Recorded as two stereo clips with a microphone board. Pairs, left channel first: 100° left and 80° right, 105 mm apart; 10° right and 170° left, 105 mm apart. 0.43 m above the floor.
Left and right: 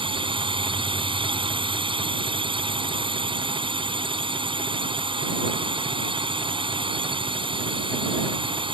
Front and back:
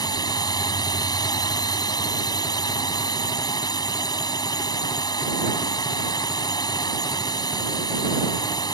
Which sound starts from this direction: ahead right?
A drone, at 0.0 s.